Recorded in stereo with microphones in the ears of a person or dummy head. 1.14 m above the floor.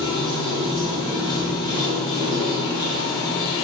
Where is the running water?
25° left (ahead or behind), 1.2 m.